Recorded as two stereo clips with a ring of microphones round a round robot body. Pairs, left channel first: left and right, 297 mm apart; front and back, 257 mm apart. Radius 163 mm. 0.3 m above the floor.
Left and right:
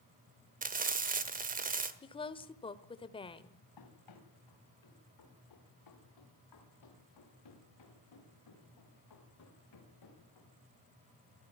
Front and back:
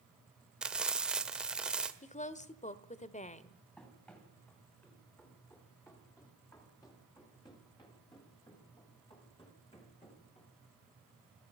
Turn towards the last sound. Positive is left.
turn(degrees=65)